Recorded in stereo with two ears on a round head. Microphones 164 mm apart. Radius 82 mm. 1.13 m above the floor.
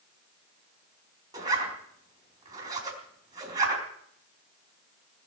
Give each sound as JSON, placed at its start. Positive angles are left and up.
{"t": 1.3, "sound": "a zipper", "side_deg": -20, "distance_m": 4.0}